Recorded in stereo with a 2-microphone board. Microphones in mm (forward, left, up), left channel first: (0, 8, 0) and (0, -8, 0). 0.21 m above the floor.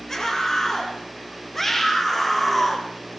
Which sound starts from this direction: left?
A scream, at 0.1 s.